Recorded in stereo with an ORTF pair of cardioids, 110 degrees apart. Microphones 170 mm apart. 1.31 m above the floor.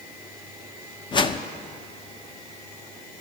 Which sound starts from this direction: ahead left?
A whoosh, at 1.1 s.